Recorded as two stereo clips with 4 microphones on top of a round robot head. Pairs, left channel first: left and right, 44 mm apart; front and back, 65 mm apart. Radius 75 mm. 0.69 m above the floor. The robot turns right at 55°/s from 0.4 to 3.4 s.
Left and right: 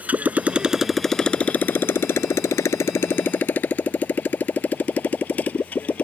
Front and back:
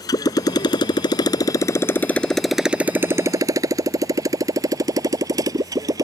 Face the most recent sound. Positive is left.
turn(degrees=150)